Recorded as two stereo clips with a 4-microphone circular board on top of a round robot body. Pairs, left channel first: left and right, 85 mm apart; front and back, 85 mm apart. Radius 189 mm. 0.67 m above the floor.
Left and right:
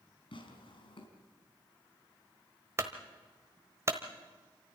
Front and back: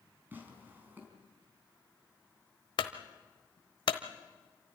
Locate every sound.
0.3 s tearing paper: 110° left, 4 m
2.8 s a clunk: 30° right, 1.1 m